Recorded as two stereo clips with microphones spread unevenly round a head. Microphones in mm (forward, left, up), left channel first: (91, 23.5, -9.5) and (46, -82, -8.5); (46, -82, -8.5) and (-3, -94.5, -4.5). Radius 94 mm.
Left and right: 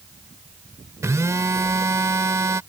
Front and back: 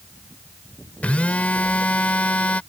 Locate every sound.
1.0 s a phone buzzing: 50° right